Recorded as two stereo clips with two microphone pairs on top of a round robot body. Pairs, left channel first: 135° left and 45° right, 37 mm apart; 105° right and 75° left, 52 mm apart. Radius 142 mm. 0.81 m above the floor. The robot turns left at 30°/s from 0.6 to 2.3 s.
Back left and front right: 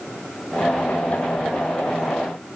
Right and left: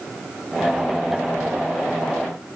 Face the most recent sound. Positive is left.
No sound to turn to.